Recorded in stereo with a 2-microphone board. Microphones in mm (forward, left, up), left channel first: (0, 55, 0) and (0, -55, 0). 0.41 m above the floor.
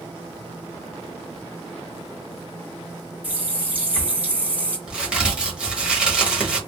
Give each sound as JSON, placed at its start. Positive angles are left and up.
{"t": 3.2, "sound": "a running tap", "side_deg": -15, "distance_m": 1.3}
{"t": 4.9, "sound": "a crack", "side_deg": -10, "distance_m": 1.1}